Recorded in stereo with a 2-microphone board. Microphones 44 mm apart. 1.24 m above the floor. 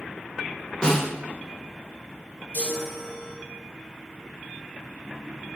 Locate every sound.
0.8 s a snare drum: 25° left (ahead or behind), 1.5 m
2.5 s a chime: 50° left (ahead or behind), 2.5 m